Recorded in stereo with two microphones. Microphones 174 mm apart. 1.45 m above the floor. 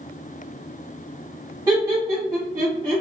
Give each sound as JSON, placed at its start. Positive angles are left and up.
{"t": 1.7, "sound": "laughter", "side_deg": -20, "distance_m": 0.7}